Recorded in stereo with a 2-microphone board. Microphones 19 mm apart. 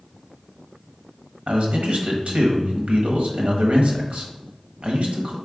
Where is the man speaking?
70° right (ahead or behind), 1.1 m.